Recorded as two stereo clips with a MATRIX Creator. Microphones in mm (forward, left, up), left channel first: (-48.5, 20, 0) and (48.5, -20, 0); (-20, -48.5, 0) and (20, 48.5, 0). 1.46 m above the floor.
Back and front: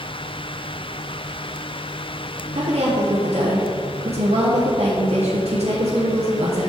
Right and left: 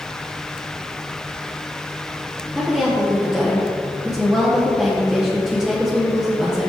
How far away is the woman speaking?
About 1.0 m.